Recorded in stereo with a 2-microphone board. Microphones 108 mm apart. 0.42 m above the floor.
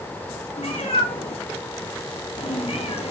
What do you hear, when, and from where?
0.6 s a cat meowing: 70° left (ahead or behind), 5.5 m